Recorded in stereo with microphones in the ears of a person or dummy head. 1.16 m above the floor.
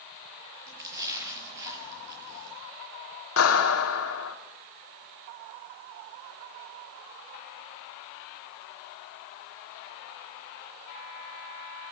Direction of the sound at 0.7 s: 20° right (ahead or behind).